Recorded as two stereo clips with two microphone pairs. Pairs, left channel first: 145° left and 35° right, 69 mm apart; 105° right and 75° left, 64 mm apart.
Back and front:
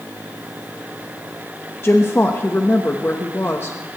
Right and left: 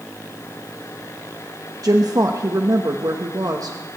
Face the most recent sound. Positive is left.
turn(degrees=95)